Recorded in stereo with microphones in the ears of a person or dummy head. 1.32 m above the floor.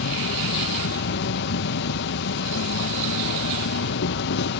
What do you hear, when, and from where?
0.0 s an insect: 60° left (ahead or behind)